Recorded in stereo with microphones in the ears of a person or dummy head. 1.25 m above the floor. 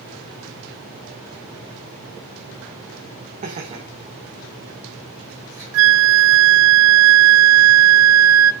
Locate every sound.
3.4 s laughter: 40° right (ahead or behind), 1.3 m; by 5.6 s 15° right (ahead or behind), 3 m
5.7 s a flute: 80° right, 0.6 m